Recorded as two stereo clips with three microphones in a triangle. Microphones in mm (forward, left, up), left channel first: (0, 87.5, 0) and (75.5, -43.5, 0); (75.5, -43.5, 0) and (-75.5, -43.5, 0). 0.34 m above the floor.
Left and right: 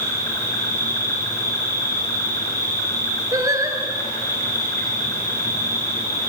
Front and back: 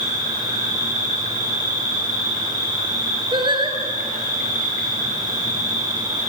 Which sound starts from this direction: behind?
An insect, at 0.0 s.